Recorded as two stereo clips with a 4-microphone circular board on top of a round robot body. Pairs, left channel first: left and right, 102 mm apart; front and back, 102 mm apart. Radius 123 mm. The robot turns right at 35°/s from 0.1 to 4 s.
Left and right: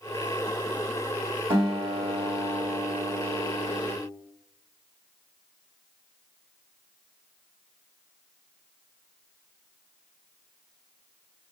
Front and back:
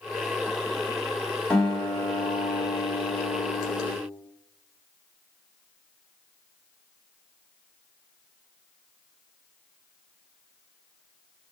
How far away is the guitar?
About 1.7 m.